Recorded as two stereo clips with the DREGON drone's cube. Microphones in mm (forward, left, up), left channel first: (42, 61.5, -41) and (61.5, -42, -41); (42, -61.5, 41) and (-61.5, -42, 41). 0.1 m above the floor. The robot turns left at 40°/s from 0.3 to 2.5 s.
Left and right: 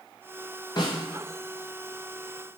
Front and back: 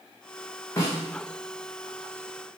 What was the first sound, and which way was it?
A snare drum, 50° left.